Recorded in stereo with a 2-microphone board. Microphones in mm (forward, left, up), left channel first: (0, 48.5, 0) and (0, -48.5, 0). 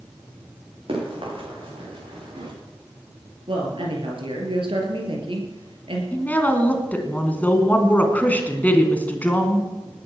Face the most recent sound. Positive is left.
turn(degrees=15)  # may be behind; listen again after turning